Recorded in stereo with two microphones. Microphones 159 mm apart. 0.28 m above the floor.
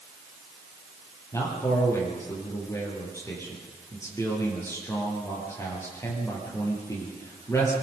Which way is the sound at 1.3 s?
20° left (ahead or behind).